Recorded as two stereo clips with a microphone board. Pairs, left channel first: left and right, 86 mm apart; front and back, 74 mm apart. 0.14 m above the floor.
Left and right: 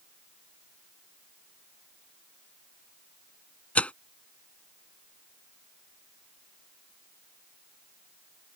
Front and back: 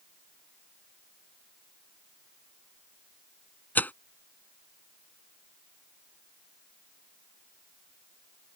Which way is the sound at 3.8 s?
35° left.